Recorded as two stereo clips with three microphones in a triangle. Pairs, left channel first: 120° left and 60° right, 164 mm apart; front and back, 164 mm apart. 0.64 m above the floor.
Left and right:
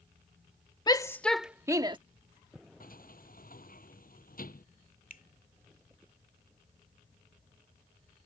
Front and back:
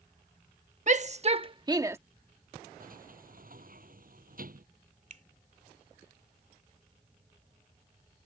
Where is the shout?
175° left; by 2.0 s 110° right.